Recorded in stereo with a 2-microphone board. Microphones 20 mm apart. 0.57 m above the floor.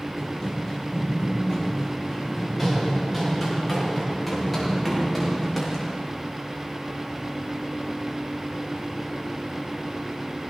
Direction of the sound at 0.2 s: 5° left (ahead or behind).